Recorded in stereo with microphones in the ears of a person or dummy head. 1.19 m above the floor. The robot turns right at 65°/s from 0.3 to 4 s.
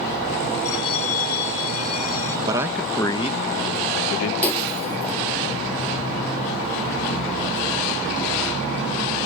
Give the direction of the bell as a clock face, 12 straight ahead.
12 o'clock.